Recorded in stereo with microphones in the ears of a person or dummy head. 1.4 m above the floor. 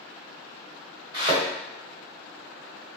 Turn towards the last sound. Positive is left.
turn(degrees=-25)  # may be behind; listen again after turning